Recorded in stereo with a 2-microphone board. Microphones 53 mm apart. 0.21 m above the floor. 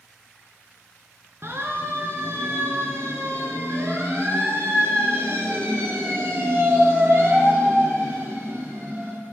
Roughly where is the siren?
Right.